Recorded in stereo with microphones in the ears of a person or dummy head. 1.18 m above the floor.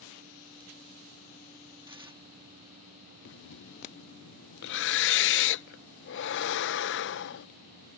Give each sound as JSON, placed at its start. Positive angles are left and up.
{"t": 1.9, "sound": "tearing paper", "side_deg": -20}
{"t": 3.2, "sound": "breathing", "side_deg": 65}